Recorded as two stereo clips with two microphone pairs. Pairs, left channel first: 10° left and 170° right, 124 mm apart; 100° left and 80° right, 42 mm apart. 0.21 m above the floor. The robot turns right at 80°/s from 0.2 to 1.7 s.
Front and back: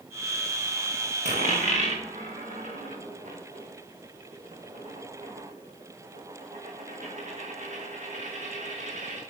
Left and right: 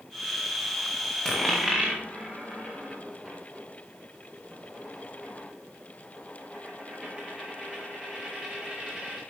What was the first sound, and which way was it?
A dropped coin, 170° left.